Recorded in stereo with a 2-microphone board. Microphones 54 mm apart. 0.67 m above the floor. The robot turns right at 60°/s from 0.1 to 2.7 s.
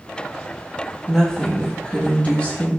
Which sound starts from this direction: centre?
A woman speaking, at 1.1 s.